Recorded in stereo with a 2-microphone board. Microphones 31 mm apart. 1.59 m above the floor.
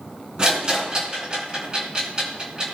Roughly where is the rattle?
Right.